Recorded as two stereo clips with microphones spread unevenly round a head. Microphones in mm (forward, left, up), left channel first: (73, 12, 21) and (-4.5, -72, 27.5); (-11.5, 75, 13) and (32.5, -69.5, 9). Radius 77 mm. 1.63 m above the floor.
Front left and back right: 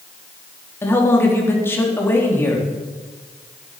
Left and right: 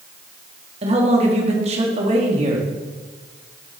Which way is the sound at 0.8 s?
25° right.